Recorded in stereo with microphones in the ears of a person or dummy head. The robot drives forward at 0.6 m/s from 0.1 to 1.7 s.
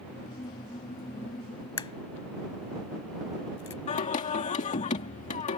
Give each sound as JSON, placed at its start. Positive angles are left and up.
{"t": 1.8, "sound": "a crack", "side_deg": 25}
{"t": 3.9, "sound": "singing", "side_deg": 40}